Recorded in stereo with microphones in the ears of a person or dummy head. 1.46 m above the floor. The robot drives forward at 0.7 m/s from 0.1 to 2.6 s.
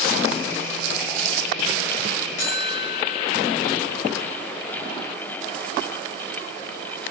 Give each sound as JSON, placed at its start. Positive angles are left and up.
{"t": 2.4, "sound": "a buzzer", "side_deg": 45, "distance_m": 1.9}